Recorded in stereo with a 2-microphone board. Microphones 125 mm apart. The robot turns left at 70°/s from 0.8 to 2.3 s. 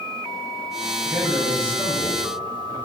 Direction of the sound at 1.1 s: 5° right (ahead or behind).